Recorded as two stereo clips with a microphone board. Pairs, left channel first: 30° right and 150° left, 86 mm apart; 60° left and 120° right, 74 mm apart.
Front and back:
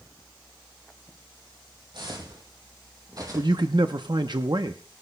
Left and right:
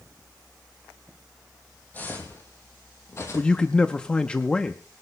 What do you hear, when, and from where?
1.9 s footsteps: 125° left, 2.5 m; by 3.7 s 100° left, 2.5 m
3.3 s a man speaking: 135° left, 0.7 m